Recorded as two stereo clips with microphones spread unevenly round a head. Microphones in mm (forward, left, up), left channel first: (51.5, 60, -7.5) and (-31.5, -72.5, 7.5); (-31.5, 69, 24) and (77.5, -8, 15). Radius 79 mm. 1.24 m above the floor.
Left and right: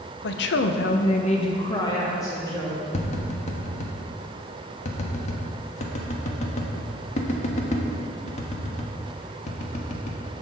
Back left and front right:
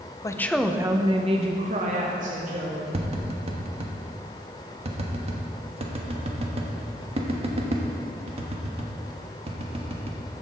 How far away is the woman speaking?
About 0.8 m.